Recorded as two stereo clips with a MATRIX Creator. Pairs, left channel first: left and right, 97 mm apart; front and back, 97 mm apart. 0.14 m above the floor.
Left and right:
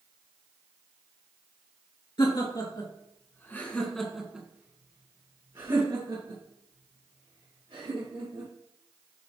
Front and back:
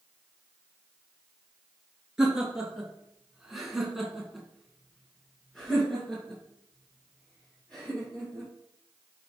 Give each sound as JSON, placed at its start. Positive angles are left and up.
{"t": 2.2, "sound": "laughter", "azimuth_deg": 95, "distance_m": 2.5}